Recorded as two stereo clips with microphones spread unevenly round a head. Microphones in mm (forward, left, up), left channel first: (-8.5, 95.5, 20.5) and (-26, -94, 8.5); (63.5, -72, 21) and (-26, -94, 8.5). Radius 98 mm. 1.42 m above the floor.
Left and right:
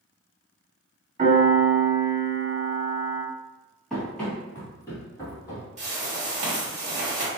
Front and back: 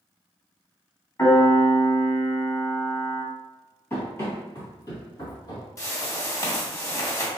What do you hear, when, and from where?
1.2 s a piano: 35° right, 1.9 m
3.9 s running footsteps: 5° left, 1.6 m; by 5.7 s 20° left, 2 m
5.8 s a whoosh: 40° right, 1.4 m